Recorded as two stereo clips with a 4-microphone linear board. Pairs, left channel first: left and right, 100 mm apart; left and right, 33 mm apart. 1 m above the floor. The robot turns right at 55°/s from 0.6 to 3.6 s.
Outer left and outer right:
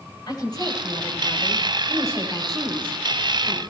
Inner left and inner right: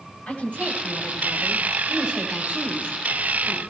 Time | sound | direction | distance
0.3 | a woman speaking | 135° left | 7 m